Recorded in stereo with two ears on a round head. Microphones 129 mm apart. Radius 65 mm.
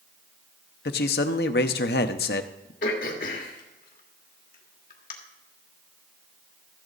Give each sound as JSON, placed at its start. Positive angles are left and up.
{"t": 0.8, "sound": "a man speaking", "side_deg": 75, "distance_m": 0.8}
{"t": 2.8, "sound": "throat clearing", "side_deg": 65, "distance_m": 1.8}